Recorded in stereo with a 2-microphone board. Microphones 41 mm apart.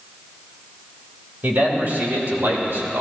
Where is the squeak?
No squeak in this recording.